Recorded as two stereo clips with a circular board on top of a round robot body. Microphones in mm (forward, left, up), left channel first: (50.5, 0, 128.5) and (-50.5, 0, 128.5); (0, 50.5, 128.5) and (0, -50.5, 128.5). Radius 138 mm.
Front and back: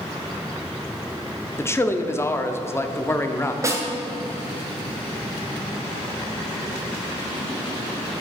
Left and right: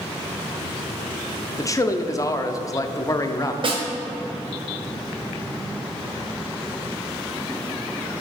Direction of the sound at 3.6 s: 120° right.